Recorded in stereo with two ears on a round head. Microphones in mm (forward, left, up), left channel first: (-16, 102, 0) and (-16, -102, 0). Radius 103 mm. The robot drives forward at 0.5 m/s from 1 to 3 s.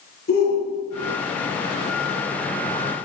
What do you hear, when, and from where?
0.3 s a shout: 45° left (ahead or behind), 6.5 m